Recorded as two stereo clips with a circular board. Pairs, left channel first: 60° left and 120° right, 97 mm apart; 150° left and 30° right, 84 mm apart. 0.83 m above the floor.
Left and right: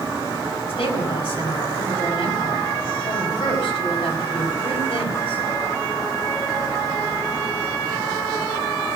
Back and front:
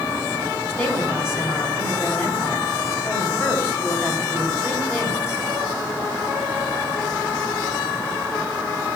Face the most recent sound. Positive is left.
turn(degrees=85)